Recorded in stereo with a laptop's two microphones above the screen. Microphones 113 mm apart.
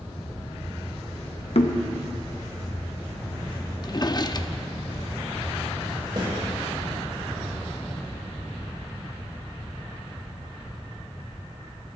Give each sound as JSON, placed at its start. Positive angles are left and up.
{"t": 1.6, "sound": "knocking", "side_deg": 65, "distance_m": 1.1}
{"t": 3.8, "sound": "a drawer", "side_deg": 35, "distance_m": 0.6}
{"t": 6.2, "sound": "a snare drum", "side_deg": -45, "distance_m": 5.5}